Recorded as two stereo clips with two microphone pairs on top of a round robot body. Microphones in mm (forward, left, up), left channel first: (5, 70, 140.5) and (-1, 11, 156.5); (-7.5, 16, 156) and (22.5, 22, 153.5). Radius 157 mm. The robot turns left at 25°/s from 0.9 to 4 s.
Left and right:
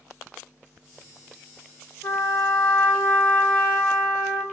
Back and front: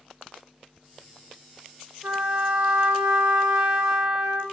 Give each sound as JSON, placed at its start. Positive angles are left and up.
{"t": 2.0, "sound": "a trumpet", "azimuth_deg": 50, "distance_m": 1.2}